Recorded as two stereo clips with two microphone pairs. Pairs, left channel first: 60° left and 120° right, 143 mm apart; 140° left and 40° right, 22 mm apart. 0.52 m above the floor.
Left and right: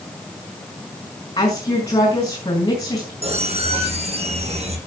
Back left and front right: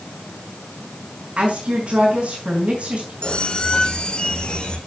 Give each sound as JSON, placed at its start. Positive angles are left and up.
{"t": 1.4, "sound": "a woman speaking", "azimuth_deg": 5, "distance_m": 6.0}
{"t": 3.2, "sound": "a squeak", "azimuth_deg": -165, "distance_m": 3.0}